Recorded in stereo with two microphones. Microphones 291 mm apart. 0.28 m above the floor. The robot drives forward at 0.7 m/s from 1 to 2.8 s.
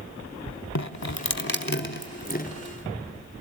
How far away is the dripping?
About 0.7 m.